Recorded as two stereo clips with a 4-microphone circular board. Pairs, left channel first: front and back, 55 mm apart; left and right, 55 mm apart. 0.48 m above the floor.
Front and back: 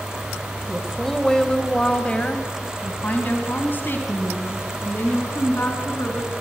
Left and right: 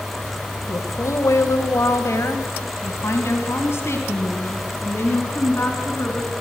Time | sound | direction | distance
0.7 | a woman speaking | 90° left | 1.8 m